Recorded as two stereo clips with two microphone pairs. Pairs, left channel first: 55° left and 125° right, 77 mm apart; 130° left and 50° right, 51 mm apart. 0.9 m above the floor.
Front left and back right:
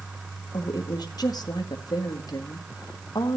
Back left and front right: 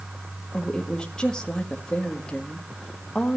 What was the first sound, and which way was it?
A woman speaking, 60° left.